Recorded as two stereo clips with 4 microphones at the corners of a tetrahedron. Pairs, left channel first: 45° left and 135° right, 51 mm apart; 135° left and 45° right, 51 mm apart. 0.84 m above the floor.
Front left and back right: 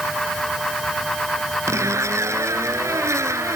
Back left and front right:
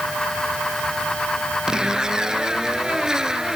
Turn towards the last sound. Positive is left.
turn(degrees=-120)